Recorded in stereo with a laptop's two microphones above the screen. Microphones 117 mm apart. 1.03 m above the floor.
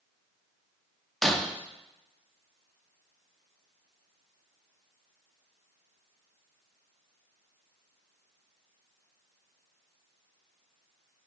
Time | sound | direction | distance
1.2 | breaking glass | centre (ahead or behind) | 0.5 m